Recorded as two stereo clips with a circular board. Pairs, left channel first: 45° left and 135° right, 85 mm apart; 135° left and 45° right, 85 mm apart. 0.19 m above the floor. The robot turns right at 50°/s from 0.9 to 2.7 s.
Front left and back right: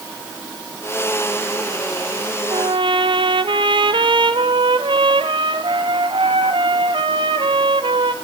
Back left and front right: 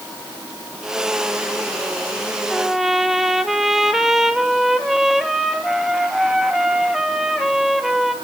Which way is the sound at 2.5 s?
140° right.